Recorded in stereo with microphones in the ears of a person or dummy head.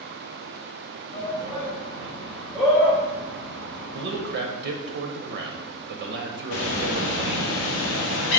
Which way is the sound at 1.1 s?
40° left (ahead or behind).